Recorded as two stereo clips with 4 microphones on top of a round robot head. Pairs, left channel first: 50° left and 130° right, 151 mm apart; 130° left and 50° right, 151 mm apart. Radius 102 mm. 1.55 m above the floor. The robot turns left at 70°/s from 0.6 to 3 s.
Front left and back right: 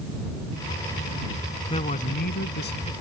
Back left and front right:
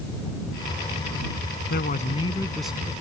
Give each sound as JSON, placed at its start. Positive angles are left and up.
{"t": 1.7, "sound": "a man speaking", "azimuth_deg": 105}